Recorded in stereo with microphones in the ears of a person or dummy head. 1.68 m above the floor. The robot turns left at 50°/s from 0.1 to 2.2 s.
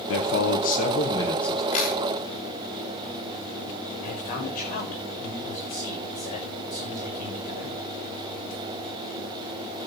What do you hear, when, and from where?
0.1 s a man speaking: 75° left, 1.9 m; by 1.6 s straight ahead, 1.9 m
1.7 s a camera shutter: 40° left (ahead or behind), 4 m; by 2.0 s 55° left (ahead or behind), 4 m
4.0 s a man speaking: 50° left (ahead or behind), 7 m